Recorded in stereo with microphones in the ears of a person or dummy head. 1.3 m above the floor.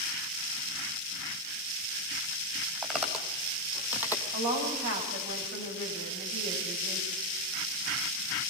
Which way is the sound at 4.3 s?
60° right (ahead or behind).